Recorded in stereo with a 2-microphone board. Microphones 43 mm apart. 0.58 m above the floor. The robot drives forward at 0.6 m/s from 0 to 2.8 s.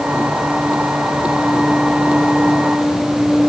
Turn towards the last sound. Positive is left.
No sound to turn to.